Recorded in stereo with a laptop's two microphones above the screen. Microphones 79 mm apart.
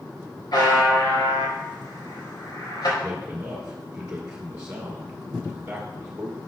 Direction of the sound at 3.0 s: 15° right (ahead or behind).